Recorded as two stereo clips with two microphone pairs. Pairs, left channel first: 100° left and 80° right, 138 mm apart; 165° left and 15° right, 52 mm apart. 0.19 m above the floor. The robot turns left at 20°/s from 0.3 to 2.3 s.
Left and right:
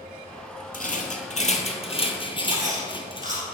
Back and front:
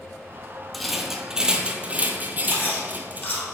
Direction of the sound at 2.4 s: 145° right.